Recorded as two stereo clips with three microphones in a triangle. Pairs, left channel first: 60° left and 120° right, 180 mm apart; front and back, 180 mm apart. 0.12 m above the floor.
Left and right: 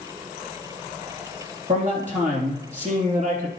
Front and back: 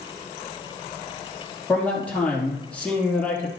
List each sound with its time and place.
1.7 s a man speaking: 80° right, 4 m